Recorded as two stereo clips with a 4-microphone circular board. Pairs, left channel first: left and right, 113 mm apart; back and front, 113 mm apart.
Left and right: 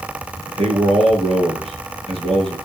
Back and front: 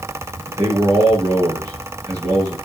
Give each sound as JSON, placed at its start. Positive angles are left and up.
{"t": 0.5, "sound": "a man speaking", "azimuth_deg": -55, "distance_m": 6.0}